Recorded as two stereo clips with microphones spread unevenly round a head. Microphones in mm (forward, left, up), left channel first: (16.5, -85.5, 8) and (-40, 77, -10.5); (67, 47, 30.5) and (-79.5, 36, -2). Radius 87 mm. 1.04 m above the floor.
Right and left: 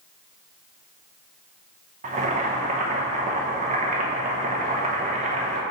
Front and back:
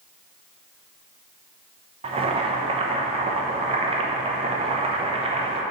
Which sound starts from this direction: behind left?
Boiling, at 2.0 s.